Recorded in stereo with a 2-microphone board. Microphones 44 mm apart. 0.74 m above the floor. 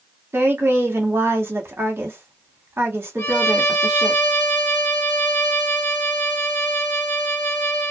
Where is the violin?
60° left (ahead or behind), 1.3 m.